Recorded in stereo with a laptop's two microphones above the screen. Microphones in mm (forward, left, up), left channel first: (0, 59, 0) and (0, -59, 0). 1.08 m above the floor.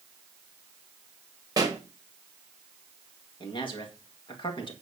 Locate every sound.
1.6 s a pop: 30° right (ahead or behind), 1.1 m
3.4 s a man speaking: 45° left (ahead or behind), 1.8 m